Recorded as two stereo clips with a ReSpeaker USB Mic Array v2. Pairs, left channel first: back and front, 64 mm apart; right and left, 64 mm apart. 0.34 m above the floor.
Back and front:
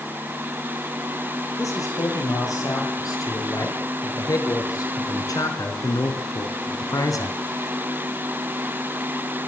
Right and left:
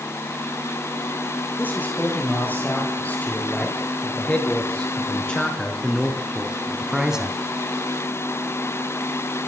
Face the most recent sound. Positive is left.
turn(degrees=165)